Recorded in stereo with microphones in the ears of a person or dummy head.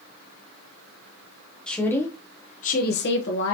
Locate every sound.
1.7 s a woman speaking: 5° left (ahead or behind), 1.0 m; by 3.5 s 60° left (ahead or behind), 0.9 m